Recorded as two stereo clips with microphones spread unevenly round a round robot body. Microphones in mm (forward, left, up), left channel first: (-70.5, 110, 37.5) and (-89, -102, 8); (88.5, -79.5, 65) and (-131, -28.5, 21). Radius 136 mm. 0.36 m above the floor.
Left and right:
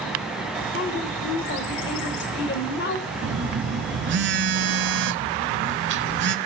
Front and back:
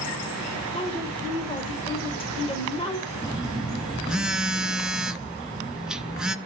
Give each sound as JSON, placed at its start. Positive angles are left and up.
{"t": 0.7, "sound": "a woman speaking", "azimuth_deg": 60, "distance_m": 1.1}
{"t": 3.2, "sound": "a phone buzzing", "azimuth_deg": -110, "distance_m": 0.6}